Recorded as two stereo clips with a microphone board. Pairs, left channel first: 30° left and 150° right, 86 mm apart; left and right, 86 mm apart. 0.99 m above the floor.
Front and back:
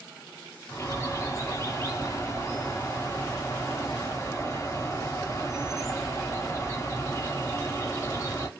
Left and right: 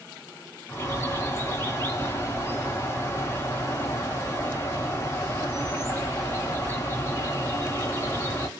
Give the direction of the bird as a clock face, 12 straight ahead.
10 o'clock.